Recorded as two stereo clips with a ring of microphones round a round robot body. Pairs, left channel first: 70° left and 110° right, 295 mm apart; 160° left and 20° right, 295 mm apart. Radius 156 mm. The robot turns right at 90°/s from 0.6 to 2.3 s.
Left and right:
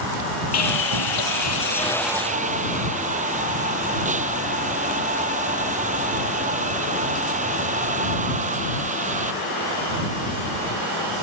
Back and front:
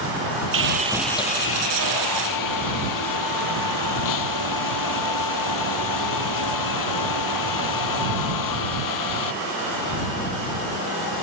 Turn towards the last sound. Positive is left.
turn(degrees=180)